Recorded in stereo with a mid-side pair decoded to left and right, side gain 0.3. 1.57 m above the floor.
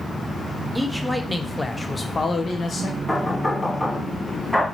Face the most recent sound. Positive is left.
turn(degrees=10)